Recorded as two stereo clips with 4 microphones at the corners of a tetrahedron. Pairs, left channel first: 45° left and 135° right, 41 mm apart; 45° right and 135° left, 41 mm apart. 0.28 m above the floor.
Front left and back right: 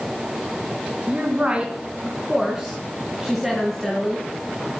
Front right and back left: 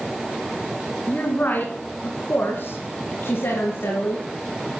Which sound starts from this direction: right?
A woman speaking, at 1.1 s.